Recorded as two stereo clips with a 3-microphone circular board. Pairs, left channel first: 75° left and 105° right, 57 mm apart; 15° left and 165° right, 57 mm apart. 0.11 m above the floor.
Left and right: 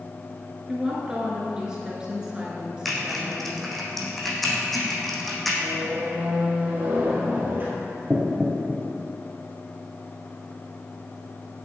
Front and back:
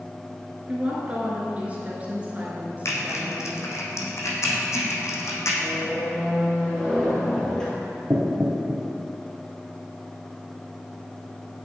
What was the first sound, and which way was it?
A woman speaking, 165° right.